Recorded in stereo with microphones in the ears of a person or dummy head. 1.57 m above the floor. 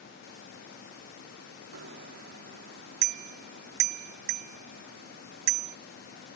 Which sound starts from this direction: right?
A bicycle bell, at 1.7 s.